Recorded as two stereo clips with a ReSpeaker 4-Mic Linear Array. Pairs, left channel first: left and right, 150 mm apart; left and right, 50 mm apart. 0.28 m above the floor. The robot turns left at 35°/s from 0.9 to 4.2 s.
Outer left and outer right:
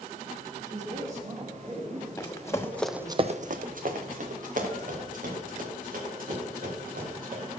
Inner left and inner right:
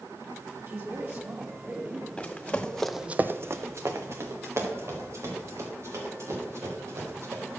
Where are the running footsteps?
15° left (ahead or behind), 1.2 m; by 7.5 s 70° right (ahead or behind), 6 m.